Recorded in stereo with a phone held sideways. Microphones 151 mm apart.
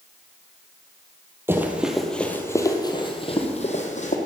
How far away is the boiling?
No boiling in this recording.